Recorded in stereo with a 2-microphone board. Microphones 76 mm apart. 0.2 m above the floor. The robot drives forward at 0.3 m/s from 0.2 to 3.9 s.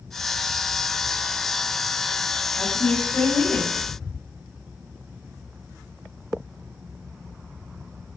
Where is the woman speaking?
25° left (ahead or behind), 1.2 m.